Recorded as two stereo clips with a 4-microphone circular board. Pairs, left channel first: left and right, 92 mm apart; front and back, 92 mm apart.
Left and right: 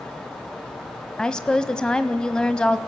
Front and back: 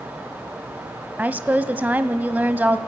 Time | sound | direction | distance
1.2 | a woman speaking | 155° left | 1.1 m